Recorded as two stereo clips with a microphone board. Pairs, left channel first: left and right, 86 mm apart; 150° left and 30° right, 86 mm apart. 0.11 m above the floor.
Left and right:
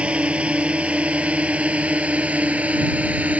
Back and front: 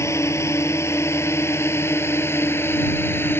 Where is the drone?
165° right; by 3.4 s 160° right.